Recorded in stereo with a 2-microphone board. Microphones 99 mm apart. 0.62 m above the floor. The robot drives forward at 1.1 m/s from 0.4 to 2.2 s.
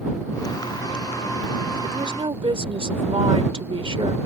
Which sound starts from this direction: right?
A woman speaking, at 1.8 s.